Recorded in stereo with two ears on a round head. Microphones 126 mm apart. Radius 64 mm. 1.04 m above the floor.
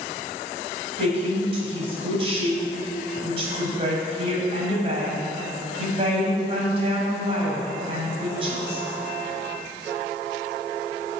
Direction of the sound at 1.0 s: 40° right (ahead or behind).